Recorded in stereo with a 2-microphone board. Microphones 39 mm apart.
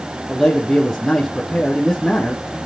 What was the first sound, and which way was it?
A man speaking, centre (ahead or behind).